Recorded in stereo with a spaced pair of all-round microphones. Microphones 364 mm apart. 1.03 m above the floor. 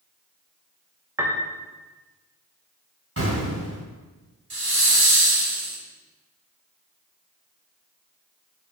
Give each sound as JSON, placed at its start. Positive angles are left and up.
{"t": 1.2, "sound": "a piano", "side_deg": -5, "distance_m": 0.9}
{"t": 3.2, "sound": "an explosion", "side_deg": -35, "distance_m": 3.0}
{"t": 4.5, "sound": "a hiss", "side_deg": -75, "distance_m": 1.4}